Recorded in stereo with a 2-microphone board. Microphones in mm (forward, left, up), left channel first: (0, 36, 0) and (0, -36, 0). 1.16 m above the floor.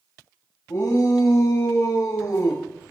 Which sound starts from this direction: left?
A shout, at 0.7 s.